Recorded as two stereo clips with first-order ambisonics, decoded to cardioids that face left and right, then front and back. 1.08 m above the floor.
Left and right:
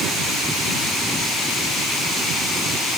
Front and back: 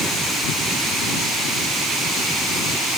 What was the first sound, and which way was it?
Only background noise.